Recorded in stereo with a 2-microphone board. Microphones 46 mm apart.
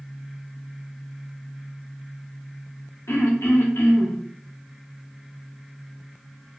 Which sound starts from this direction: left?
Throat clearing, at 3.1 s.